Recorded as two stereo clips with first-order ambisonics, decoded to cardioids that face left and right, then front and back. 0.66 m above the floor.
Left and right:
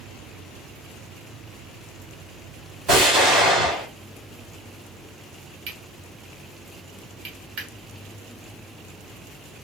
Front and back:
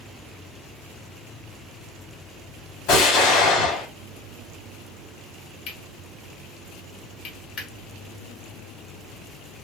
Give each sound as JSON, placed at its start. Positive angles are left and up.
{"t": 2.9, "sound": "an explosion", "azimuth_deg": -30, "distance_m": 2.5}
{"t": 5.7, "sound": "cutlery clinking", "azimuth_deg": -45, "distance_m": 1.7}